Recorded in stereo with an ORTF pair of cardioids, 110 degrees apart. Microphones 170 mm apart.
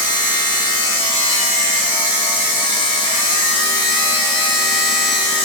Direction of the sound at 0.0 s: 30° left.